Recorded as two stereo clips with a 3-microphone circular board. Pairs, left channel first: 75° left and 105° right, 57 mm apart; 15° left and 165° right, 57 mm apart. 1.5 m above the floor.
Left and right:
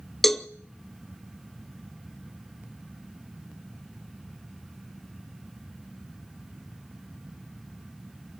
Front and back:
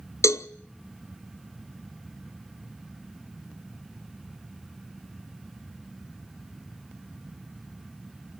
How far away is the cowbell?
About 0.7 m.